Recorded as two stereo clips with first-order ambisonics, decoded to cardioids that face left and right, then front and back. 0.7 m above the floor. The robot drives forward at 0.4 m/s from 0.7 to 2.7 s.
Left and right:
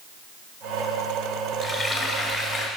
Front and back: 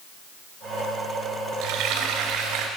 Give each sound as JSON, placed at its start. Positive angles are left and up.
{"t": 1.6, "sound": "frying", "azimuth_deg": -175, "distance_m": 1.3}